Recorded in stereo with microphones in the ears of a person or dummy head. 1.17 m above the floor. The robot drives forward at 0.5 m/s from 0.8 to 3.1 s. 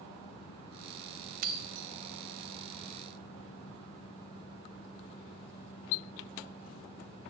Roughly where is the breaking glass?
Right.